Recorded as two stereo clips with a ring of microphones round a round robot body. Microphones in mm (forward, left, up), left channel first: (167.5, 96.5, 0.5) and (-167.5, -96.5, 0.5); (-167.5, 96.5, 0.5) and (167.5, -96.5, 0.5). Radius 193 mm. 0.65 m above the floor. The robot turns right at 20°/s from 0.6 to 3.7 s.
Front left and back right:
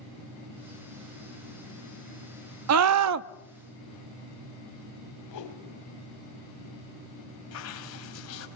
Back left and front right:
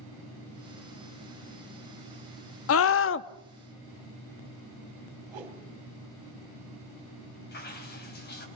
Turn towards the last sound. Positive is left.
turn(degrees=85)